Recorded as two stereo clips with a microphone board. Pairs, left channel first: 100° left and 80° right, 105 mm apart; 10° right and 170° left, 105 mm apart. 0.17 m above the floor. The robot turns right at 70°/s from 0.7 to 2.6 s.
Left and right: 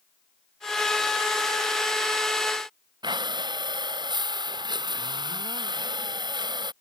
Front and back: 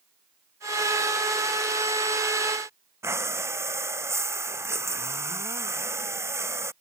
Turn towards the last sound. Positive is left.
turn(degrees=-125)